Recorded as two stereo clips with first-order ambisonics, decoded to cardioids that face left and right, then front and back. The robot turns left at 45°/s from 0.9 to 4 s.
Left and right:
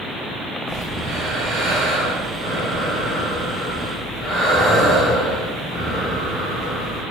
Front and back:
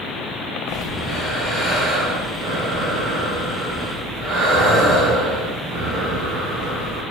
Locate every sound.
0.7 s breathing: 45° right, 1.5 m; by 7.0 s 175° left, 1.5 m